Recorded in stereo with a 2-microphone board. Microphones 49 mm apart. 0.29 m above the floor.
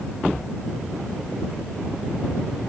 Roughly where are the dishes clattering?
I don't hear dishes clattering.